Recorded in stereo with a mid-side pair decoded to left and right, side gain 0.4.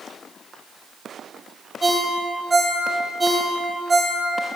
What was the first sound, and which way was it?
A ringtone, 20° right.